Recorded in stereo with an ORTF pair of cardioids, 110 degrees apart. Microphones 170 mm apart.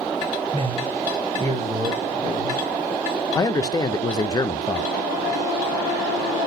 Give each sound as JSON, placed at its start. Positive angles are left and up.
{"t": 0.5, "sound": "a man speaking", "azimuth_deg": -35, "distance_m": 0.6}
{"t": 3.4, "sound": "a man speaking", "azimuth_deg": 25, "distance_m": 0.6}